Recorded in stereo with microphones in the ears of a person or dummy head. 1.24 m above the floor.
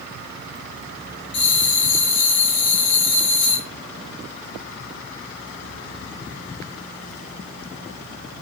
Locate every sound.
1.3 s a bell: 25° left (ahead or behind), 1.2 m